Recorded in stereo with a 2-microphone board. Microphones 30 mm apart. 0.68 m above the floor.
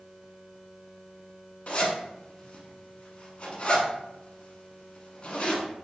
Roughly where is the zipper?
Left.